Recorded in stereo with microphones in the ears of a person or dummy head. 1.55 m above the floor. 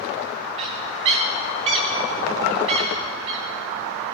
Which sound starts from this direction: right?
A bird, at 0.6 s.